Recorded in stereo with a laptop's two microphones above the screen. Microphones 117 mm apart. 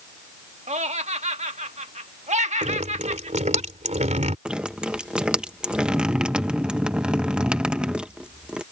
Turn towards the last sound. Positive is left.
turn(degrees=-10)  # may be behind; listen again after turning